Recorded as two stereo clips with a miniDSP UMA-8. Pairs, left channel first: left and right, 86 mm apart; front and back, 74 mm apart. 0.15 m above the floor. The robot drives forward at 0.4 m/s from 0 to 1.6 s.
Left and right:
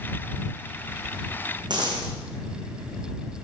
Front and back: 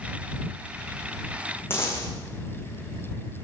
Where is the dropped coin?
60° right, 4 m.